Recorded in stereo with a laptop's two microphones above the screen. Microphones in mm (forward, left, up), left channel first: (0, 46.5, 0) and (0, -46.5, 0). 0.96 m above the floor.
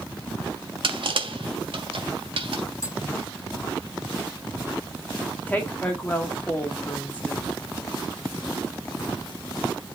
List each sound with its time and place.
0.8 s crushing: 65° right (ahead or behind), 1.6 m
2.8 s tapping: 35° left (ahead or behind), 0.9 m
5.5 s a woman speaking: 20° left (ahead or behind), 1.6 m